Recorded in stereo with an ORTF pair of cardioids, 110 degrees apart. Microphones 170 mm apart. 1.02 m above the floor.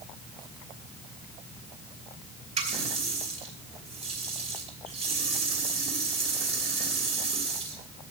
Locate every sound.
2.6 s a running tap: 40° right, 3 m